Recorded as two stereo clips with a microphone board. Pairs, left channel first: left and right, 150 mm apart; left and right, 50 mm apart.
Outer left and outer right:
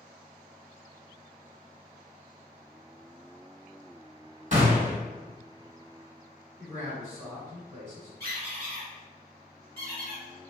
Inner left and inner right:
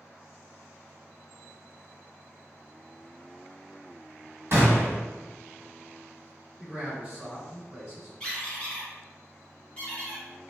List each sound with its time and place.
4.5 s a gunshot: 50° right (ahead or behind), 1.2 m
6.6 s a man speaking: 15° right (ahead or behind), 1.8 m
8.2 s a squeak: 20° left (ahead or behind), 1.7 m